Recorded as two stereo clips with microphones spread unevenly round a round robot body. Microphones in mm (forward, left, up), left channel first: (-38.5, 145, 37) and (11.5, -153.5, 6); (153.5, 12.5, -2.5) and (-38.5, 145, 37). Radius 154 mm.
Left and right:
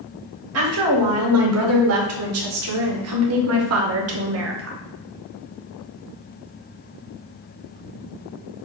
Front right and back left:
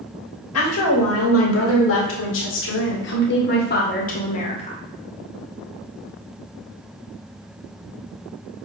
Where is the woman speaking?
45° right, 3 m; by 4.8 s 90° right, 1.3 m.